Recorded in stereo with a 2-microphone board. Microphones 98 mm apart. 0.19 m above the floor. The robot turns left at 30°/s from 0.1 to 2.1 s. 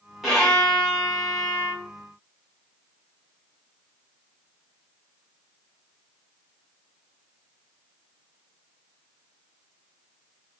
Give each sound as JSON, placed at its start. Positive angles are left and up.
{"t": 0.2, "sound": "a violin", "side_deg": 0, "distance_m": 1.5}